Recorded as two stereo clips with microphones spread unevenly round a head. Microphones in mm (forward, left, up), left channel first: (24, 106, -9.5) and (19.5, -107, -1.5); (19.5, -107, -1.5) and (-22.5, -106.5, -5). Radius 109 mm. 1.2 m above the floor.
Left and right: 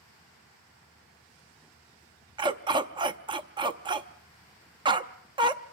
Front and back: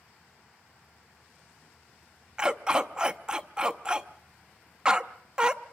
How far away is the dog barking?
About 0.6 m.